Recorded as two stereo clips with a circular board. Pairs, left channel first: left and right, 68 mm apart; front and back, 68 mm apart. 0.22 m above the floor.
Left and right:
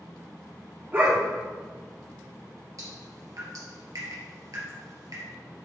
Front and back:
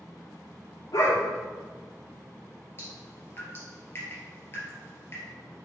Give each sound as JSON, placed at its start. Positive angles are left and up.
{"t": 0.9, "sound": "a dog barking", "azimuth_deg": -35, "distance_m": 3.0}
{"t": 2.8, "sound": "dripping", "azimuth_deg": -55, "distance_m": 3.0}